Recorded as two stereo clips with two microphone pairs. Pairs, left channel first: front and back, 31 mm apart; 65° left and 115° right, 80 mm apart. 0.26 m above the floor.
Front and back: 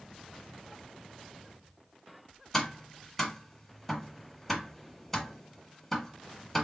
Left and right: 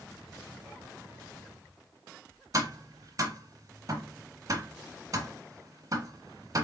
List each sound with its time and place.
2.5 s tapping: 80° right, 1.1 m